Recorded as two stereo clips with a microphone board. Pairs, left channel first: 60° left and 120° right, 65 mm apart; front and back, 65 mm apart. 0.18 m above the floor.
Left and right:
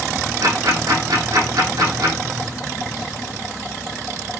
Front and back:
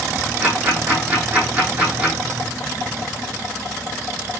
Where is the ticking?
110° right, 6.5 m.